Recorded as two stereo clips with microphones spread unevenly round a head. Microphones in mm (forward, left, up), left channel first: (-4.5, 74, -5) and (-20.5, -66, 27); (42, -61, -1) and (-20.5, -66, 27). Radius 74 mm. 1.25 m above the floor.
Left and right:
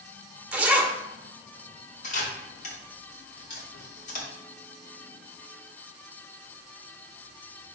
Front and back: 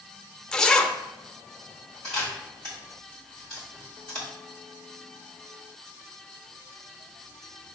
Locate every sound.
0.5 s a zipper: 130° right, 0.7 m
2.0 s a camera shutter: 120° left, 3 m